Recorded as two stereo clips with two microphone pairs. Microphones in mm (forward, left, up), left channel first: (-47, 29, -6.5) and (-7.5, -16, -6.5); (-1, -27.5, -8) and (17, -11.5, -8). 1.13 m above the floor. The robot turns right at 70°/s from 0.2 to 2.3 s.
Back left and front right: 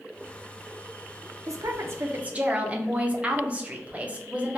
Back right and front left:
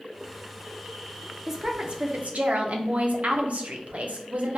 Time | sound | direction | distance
1.5 | a woman speaking | 40° right | 0.6 m